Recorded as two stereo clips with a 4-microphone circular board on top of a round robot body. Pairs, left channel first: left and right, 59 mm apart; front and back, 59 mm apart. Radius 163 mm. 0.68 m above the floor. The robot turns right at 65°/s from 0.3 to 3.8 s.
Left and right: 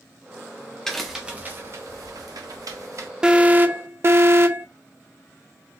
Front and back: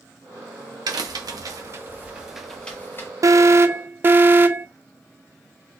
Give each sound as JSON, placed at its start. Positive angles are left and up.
{"t": 0.9, "sound": "a crack", "azimuth_deg": 170, "distance_m": 0.7}
{"t": 3.2, "sound": "an alarm", "azimuth_deg": -165, "distance_m": 0.6}